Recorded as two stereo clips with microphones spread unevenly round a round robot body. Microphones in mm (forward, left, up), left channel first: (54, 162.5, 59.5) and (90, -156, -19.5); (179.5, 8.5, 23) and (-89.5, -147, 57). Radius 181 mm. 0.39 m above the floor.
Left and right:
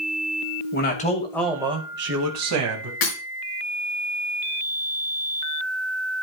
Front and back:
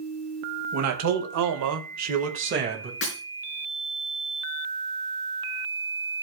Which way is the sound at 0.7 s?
165° left.